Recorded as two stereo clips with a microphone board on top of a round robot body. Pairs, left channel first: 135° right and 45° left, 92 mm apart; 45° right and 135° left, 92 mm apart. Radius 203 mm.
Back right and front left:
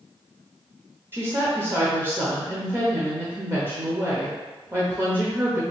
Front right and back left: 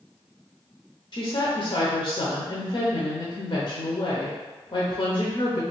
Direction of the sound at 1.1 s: 15° right.